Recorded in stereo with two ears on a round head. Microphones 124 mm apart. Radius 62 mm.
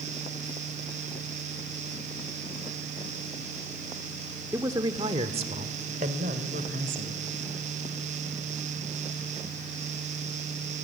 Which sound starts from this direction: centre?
A man speaking, at 4.5 s.